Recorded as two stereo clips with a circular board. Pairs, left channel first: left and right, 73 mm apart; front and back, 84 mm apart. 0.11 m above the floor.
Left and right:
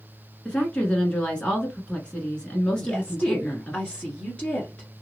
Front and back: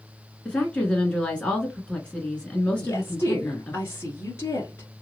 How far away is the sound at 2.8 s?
About 1.4 m.